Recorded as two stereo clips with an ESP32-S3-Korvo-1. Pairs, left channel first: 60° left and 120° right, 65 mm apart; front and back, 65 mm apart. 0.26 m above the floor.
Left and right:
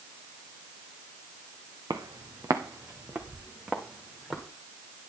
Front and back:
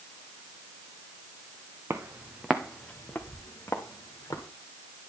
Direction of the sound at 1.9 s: 130° right.